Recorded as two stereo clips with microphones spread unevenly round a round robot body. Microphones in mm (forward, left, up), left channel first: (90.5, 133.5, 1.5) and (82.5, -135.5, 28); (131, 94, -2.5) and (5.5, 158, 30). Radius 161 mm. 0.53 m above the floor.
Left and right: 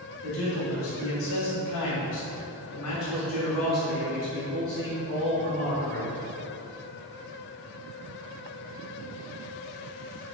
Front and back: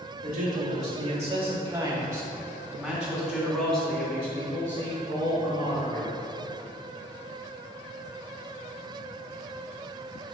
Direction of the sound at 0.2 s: 140° left.